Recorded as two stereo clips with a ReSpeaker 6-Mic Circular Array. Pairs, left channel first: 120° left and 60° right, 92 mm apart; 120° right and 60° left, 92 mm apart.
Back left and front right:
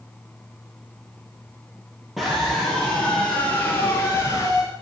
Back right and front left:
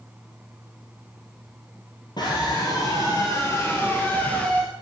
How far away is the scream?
About 2 m.